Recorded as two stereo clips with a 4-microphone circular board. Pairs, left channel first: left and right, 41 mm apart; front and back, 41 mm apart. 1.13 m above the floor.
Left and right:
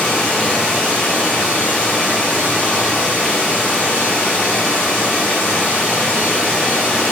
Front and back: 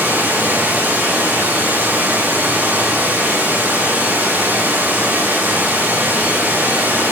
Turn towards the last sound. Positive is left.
turn(degrees=-170)